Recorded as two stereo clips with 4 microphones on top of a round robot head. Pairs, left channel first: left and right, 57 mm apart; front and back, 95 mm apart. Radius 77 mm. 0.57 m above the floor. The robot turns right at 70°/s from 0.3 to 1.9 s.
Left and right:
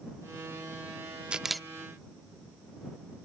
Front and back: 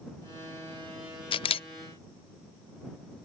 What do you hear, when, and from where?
1.3 s a camera shutter: 20° right; by 1.7 s 5° left